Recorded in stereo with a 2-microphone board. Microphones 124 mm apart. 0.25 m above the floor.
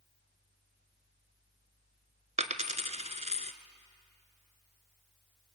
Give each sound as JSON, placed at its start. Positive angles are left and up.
{"t": 2.4, "sound": "a dropped coin", "side_deg": -70, "distance_m": 1.0}